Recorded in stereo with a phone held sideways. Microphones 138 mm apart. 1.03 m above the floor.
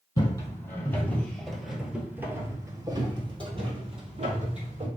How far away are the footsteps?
About 1.4 m.